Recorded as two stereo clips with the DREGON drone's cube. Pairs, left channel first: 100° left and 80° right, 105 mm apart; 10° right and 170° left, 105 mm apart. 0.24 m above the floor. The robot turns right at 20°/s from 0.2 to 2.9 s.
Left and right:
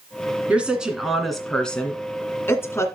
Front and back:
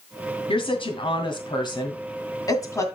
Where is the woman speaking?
5° right, 2 m; by 2.9 s 45° left, 2 m.